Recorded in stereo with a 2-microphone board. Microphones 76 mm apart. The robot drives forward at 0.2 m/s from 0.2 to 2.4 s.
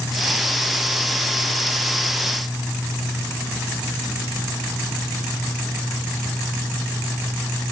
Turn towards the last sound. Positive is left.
No sound to turn to.